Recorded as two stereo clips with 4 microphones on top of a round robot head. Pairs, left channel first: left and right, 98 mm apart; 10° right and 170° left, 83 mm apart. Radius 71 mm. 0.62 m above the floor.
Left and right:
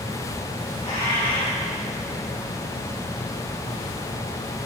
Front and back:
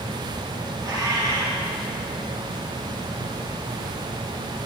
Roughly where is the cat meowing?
Behind left.